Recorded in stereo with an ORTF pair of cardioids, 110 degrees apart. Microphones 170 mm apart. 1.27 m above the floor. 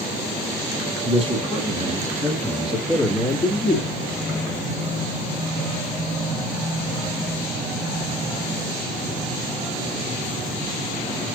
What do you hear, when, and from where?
1.0 s a man speaking: 35° right, 1.9 m; by 4.8 s 30° left, 2 m